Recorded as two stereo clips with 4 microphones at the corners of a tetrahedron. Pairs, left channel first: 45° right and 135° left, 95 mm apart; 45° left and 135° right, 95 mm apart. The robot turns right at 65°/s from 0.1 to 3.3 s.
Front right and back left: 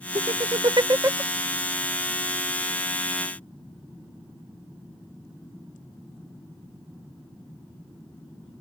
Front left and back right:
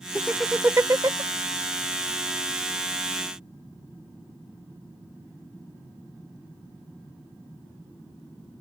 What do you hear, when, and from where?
0.1 s laughter: 125° left; by 1.2 s 165° right